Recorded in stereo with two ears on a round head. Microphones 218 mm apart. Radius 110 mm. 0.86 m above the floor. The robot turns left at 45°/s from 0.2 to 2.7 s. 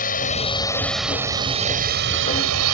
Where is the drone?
35° left; by 2.8 s 75° right.